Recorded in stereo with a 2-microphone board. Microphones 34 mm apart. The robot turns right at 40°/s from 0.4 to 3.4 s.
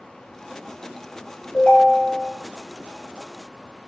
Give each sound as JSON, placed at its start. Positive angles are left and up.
{"t": 1.5, "sound": "a ringtone", "azimuth_deg": 115, "distance_m": 2.0}